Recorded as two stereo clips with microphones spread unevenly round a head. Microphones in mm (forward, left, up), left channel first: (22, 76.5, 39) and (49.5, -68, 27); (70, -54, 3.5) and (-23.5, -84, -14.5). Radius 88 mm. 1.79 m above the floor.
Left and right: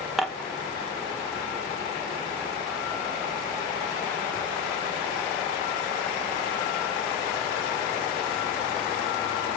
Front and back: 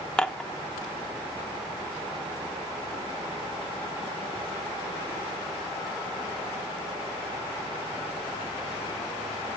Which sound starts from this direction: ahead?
Dishes clattering, at 0.2 s.